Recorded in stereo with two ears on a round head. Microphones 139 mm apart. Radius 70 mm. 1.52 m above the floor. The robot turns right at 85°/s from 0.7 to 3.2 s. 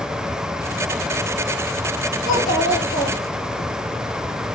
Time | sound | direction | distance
2.3 | a child speaking | 55° left | 1.4 m